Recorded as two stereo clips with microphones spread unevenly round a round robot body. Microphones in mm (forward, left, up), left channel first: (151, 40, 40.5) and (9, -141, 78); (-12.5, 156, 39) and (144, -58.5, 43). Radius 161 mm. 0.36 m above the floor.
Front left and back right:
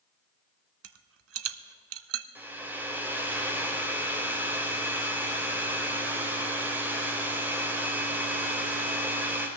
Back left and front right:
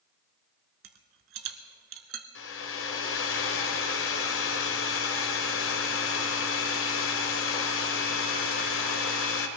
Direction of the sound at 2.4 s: 145° left.